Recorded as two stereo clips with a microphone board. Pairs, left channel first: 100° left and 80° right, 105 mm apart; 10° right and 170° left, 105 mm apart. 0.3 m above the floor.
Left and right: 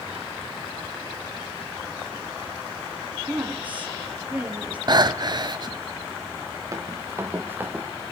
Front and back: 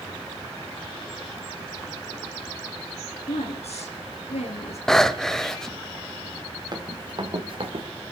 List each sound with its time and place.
3.3 s a woman speaking: 5° right, 5 m
4.9 s breathing: 95° right, 1.1 m
6.7 s running footsteps: 140° right, 3.5 m; by 7.8 s 155° right, 3 m